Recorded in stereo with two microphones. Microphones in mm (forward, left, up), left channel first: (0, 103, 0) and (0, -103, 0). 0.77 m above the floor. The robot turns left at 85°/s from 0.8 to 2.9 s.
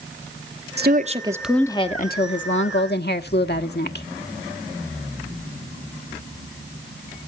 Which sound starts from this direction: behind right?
A woman speaking, at 0.8 s.